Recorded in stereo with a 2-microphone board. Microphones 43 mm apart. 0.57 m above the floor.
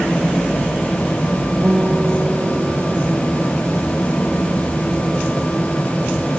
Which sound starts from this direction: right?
A guitar, at 1.6 s.